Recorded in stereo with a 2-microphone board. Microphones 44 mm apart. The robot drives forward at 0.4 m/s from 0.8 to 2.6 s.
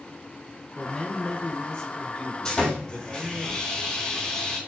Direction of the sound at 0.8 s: 20° left (ahead or behind).